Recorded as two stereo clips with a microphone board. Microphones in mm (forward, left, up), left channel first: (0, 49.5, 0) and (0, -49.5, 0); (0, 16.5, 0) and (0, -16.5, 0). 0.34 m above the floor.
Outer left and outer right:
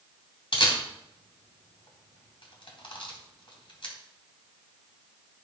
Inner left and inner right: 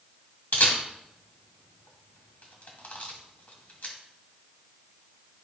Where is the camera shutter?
60° left (ahead or behind), 2.5 m.